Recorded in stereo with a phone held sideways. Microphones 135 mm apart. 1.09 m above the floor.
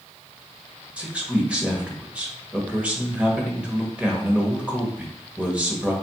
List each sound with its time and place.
1.0 s a man speaking: 10° right (ahead or behind), 1.1 m